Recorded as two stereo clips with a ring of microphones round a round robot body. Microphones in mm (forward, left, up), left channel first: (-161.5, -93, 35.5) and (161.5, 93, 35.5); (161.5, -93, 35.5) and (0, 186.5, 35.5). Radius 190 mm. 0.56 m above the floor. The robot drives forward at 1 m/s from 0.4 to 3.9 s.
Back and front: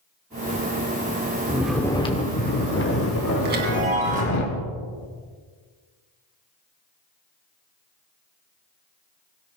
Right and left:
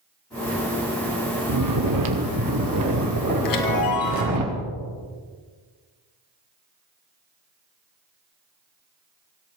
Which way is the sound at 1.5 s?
110° left.